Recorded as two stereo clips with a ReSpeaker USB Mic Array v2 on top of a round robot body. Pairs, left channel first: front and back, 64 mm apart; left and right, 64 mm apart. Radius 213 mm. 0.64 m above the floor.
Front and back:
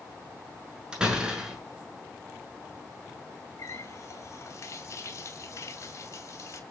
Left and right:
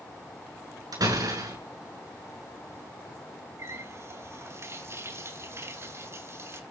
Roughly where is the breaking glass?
I don't hear breaking glass.